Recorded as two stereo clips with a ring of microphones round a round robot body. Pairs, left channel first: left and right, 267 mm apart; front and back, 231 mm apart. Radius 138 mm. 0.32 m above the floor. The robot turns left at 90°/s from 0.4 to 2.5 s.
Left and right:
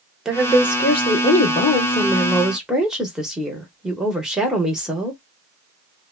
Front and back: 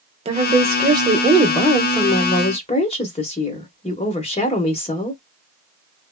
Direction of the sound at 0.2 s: 175° right.